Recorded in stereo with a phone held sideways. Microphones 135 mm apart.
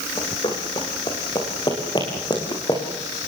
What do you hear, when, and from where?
0.2 s running footsteps: 40° left (ahead or behind), 5 m; by 2.8 s 35° left (ahead or behind), 7 m